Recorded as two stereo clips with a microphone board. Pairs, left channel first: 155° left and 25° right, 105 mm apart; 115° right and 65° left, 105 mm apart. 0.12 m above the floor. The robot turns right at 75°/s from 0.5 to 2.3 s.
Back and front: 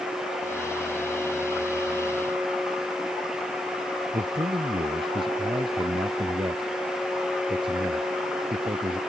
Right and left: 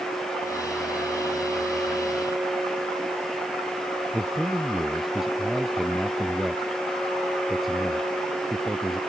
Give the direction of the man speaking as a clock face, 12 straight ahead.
1 o'clock.